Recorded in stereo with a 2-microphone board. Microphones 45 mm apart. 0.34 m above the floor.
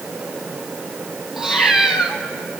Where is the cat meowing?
15° right (ahead or behind), 1.6 m.